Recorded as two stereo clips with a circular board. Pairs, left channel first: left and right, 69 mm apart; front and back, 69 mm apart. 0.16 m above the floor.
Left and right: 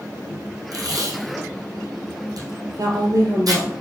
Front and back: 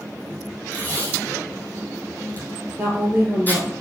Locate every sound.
0.7 s tape being pulled: 65° right, 3 m
2.8 s a woman speaking: 115° right, 3.5 m